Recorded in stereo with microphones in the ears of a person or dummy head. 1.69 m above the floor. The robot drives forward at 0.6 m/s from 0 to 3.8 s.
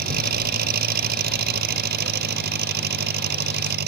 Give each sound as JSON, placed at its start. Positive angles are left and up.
{"t": 0.0, "sound": "an engine running", "side_deg": -55}